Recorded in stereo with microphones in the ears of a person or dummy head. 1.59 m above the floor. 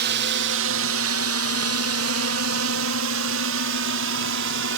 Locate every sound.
0.0 s a drone: 55° right (ahead or behind); by 4.8 s 60° right (ahead or behind)